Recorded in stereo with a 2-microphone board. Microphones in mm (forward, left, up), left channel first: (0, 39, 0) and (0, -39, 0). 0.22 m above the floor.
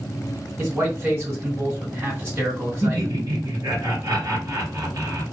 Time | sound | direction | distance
0.6 | a man speaking | 35° right (ahead or behind) | 1.9 m
2.8 | laughter | 55° right (ahead or behind) | 1.8 m